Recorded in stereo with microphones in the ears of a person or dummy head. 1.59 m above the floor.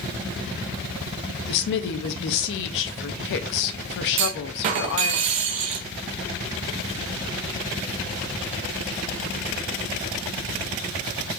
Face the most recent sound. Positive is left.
turn(degrees=-35)  # may be behind; listen again after turning